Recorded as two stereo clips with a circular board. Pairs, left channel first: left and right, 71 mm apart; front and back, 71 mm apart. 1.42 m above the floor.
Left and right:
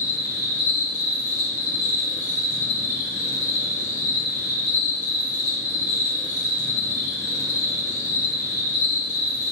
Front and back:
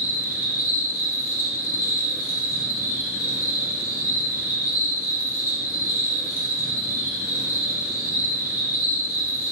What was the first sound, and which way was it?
An insect, 120° left.